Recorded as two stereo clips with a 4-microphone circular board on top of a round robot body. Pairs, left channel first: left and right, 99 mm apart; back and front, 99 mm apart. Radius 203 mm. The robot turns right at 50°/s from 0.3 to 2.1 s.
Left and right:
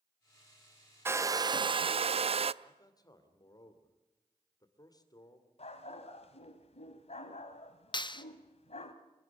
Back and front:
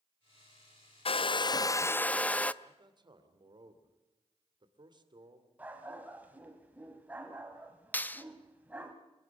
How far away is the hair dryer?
About 0.5 m.